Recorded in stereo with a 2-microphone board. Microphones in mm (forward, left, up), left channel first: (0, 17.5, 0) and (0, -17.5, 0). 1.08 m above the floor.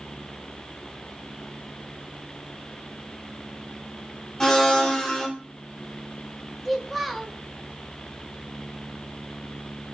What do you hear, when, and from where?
4.4 s a blender: 20° left (ahead or behind), 1.1 m
6.7 s a child speaking: centre (ahead or behind), 0.8 m